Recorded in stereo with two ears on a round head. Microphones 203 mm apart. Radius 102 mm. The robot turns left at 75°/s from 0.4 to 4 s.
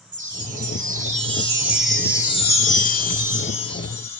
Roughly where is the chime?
Right.